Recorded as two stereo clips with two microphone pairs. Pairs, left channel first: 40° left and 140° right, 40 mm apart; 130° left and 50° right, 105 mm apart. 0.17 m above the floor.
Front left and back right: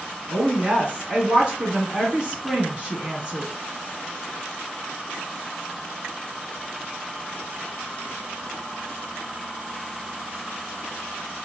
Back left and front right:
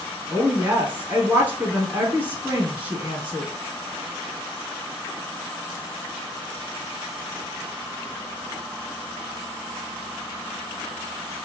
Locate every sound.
0.3 s a woman speaking: 110° right, 1.1 m